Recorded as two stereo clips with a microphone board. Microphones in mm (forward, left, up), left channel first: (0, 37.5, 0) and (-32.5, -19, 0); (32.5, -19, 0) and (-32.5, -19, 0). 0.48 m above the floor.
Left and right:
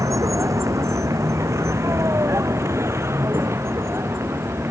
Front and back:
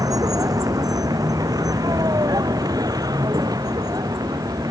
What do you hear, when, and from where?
0.0 s a vehicle: 155° right; by 4.7 s 170° right